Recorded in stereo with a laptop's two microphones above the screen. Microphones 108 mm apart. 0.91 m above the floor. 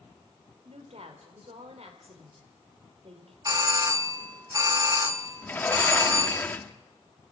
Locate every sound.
0.7 s a woman speaking: 70° right (ahead or behind), 3 m
3.5 s a doorbell: 35° right (ahead or behind), 1.1 m
5.4 s a sliding door: 15° left (ahead or behind), 1.2 m